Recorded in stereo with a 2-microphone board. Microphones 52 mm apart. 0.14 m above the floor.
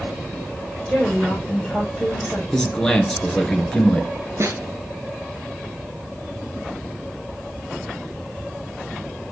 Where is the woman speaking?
5° left (ahead or behind), 5.5 m.